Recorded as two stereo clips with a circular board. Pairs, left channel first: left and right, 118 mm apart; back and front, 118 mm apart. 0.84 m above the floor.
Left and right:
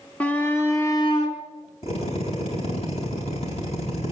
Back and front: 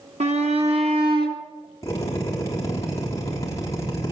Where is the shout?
10° left, 2 m; by 1.4 s 45° left, 2.5 m.